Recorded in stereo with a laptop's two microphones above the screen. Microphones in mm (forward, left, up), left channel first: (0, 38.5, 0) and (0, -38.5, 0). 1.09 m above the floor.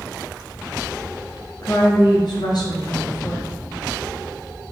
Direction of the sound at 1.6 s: 60° left (ahead or behind).